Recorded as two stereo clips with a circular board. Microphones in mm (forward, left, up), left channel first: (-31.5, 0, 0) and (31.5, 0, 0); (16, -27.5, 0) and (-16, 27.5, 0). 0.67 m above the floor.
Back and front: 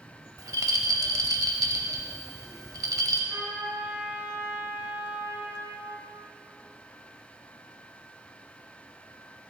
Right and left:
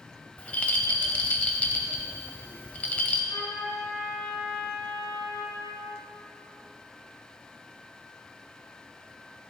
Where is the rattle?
10° left, 0.8 m.